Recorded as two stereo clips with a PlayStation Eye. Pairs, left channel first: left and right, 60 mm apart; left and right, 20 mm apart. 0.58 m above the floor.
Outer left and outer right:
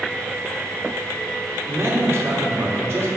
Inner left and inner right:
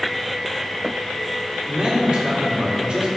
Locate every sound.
1.7 s a man speaking: 45° right (ahead or behind), 1.8 m